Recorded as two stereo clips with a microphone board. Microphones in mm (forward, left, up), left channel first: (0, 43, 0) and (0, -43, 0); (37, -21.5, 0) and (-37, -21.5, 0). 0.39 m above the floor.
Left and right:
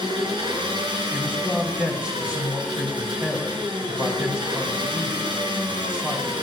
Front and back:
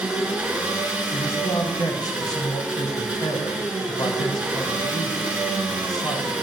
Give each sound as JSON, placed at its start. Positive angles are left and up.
{"t": 0.0, "sound": "an engine running", "azimuth_deg": -105, "distance_m": 3.5}
{"t": 1.1, "sound": "a man speaking", "azimuth_deg": -15, "distance_m": 3.0}